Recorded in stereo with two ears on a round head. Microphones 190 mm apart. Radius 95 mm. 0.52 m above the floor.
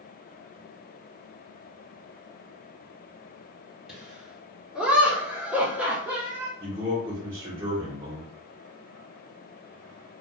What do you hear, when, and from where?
3.9 s laughter: centre (ahead or behind), 1.7 m; by 6.5 s 10° right (ahead or behind), 0.9 m
6.6 s a man speaking: 20° right (ahead or behind), 1.0 m